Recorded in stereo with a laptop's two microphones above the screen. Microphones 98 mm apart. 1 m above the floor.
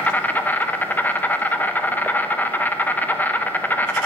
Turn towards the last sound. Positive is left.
turn(degrees=15)  # may be behind; listen again after turning